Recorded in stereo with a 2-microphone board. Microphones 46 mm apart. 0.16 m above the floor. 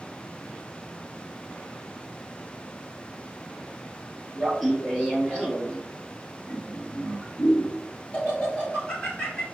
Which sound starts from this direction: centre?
Laughter, at 4.4 s.